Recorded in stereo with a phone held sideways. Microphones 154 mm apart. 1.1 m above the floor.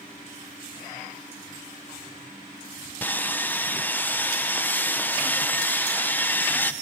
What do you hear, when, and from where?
3.0 s sawing: 10° left (ahead or behind), 0.6 m